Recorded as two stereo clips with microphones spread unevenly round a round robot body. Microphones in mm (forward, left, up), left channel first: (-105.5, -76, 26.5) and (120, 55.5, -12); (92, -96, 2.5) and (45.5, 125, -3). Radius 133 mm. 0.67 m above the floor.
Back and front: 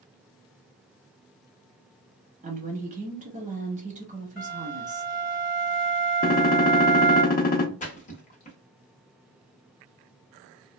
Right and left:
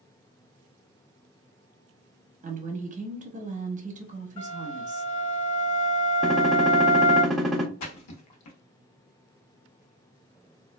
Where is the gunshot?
170° right, 0.6 m.